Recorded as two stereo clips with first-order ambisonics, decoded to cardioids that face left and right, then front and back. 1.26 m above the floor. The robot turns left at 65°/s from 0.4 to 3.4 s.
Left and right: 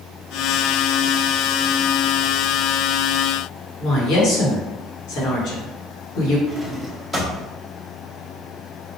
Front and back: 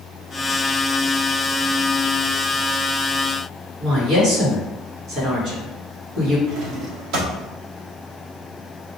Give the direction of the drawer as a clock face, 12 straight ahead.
6 o'clock.